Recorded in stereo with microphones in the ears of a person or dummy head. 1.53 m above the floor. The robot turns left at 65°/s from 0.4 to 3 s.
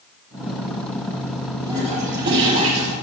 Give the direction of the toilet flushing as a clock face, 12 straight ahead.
12 o'clock.